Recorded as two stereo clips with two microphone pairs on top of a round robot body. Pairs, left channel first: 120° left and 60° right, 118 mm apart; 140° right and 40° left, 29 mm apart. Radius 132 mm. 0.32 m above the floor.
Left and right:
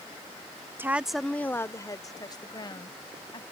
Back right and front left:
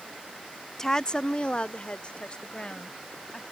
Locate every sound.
0.8 s a woman speaking: 80° right; by 3.4 s 170° left